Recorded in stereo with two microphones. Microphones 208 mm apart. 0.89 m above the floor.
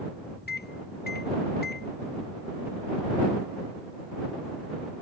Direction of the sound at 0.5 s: 45° left (ahead or behind).